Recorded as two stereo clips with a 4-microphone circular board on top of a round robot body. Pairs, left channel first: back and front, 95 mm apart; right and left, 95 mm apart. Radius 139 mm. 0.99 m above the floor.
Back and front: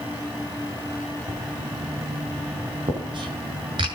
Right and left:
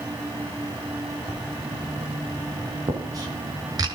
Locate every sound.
1.3 s writing: 40° left, 5.5 m